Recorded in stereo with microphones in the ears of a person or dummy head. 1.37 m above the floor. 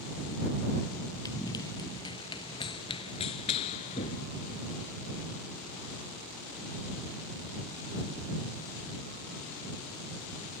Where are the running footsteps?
20° left (ahead or behind).